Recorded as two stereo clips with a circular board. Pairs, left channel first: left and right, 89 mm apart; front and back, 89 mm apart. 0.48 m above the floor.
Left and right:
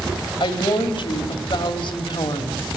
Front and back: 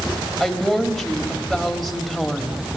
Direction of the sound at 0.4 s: 90° left.